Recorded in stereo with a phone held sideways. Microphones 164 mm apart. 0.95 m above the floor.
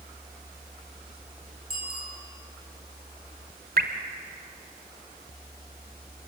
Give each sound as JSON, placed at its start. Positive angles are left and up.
{"t": 1.7, "sound": "a bicycle bell", "side_deg": -65, "distance_m": 8.0}
{"t": 3.8, "sound": "dripping", "side_deg": -70, "distance_m": 1.7}